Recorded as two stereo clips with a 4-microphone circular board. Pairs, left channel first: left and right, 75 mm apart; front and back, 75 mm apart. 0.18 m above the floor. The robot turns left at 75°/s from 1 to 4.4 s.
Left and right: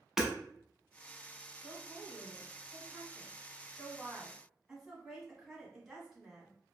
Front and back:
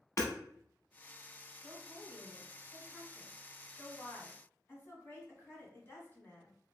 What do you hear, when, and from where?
0.2 s hammering: 10° right, 0.7 m
1.6 s a woman speaking: 160° right, 1.1 m; by 6.5 s 10° right, 1.1 m